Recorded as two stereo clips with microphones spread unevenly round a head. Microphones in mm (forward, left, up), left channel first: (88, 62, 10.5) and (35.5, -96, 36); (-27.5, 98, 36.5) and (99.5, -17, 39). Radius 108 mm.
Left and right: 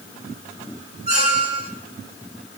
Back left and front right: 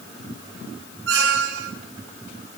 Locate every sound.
1.1 s a squeak: 65° right, 2.5 m